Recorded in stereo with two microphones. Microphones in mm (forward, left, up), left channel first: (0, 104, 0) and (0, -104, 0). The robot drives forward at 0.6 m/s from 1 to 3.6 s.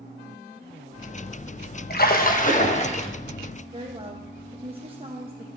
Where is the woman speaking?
25° right (ahead or behind), 1.1 m.